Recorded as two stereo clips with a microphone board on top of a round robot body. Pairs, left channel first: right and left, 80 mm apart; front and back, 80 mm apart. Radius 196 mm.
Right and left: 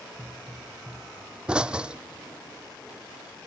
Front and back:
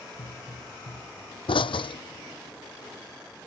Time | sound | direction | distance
0.2 | a pop | 10° left | ?